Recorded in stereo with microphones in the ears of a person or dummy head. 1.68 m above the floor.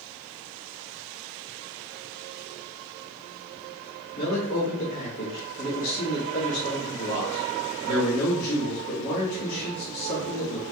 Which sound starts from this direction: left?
A man speaking, at 4.2 s.